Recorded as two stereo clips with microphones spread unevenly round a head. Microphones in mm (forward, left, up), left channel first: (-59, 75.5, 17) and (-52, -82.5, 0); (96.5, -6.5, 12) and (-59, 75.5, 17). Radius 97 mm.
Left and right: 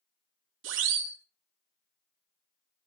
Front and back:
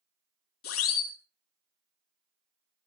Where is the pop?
I don't hear a pop.